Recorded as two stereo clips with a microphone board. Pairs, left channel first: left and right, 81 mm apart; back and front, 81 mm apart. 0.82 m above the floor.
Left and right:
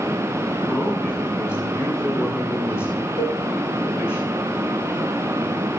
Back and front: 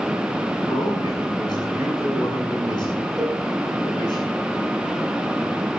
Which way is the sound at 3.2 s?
90° left.